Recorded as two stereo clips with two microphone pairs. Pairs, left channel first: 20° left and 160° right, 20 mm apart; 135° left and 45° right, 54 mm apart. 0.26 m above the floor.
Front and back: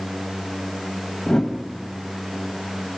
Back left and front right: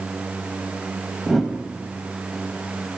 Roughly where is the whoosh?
Ahead left.